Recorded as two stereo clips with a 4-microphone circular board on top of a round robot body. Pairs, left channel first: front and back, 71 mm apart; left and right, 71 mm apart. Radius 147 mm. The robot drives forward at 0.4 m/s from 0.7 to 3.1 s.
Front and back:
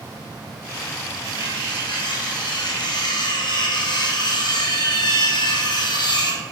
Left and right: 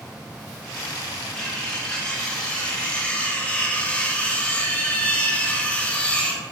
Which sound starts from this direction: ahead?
Cutlery clinking, at 1.4 s.